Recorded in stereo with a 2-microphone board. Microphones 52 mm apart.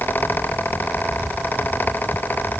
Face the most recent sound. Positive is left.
No sound to turn to.